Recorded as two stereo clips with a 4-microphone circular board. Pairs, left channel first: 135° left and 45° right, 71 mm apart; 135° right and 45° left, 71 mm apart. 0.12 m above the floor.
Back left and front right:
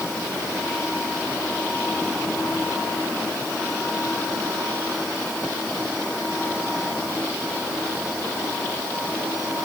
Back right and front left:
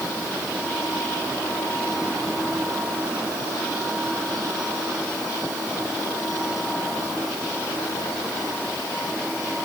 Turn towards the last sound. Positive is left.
No sound to turn to.